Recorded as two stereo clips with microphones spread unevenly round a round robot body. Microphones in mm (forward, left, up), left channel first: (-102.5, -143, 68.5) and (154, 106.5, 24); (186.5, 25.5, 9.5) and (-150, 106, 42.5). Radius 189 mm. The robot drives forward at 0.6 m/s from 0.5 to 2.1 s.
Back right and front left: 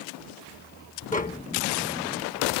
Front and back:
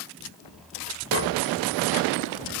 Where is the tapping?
65° right; by 1.5 s 70° right.